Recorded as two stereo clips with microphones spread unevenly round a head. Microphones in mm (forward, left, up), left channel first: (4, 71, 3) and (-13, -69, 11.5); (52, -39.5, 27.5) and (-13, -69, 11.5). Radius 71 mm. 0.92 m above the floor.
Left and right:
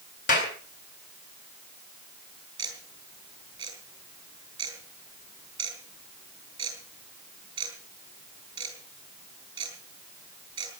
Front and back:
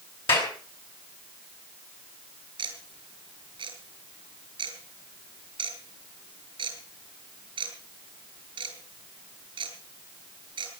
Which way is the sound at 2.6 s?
160° right.